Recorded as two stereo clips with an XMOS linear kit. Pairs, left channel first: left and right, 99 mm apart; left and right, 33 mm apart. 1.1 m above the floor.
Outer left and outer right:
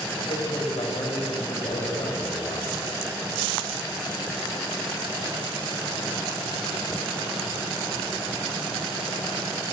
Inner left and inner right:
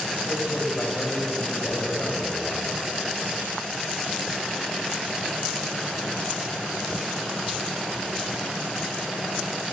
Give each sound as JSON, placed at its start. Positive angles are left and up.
{"t": 0.2, "sound": "a man speaking", "side_deg": 65, "distance_m": 6.5}